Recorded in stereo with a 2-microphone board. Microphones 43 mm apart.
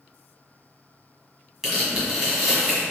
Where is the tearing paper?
15° right (ahead or behind), 1.4 m.